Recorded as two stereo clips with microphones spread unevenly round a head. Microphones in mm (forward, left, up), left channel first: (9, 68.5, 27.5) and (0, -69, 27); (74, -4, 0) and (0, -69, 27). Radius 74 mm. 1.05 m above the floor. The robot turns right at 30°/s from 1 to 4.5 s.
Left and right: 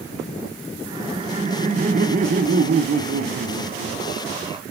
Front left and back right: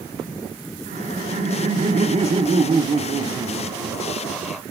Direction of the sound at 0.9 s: 150° right.